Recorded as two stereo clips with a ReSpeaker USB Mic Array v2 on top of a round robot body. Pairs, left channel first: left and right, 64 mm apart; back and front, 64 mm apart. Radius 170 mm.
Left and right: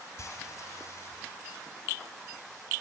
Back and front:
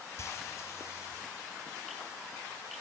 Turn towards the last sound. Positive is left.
turn(degrees=135)